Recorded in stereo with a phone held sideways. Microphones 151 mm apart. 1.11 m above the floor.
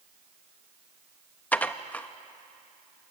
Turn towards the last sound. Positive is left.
turn(degrees=10)  # may be behind; listen again after turning